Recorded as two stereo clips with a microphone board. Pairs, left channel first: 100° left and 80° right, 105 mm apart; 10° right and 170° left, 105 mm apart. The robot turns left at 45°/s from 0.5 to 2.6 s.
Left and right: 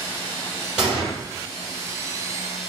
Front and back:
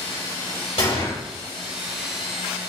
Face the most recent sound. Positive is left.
turn(degrees=-80)